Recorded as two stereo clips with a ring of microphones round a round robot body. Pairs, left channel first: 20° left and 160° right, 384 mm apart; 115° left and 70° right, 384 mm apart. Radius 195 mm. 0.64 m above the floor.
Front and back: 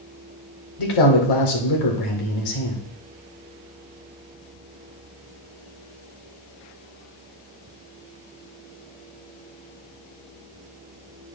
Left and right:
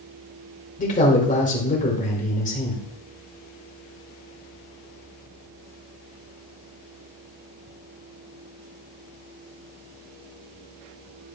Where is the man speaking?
40° left, 2 m.